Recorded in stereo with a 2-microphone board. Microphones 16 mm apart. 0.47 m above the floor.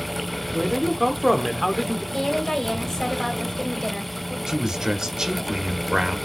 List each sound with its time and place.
0.5 s a man speaking: 5° right (ahead or behind), 0.9 m
2.1 s a woman speaking: 50° left (ahead or behind), 2.5 m
4.5 s a man speaking: 50° right (ahead or behind), 1.2 m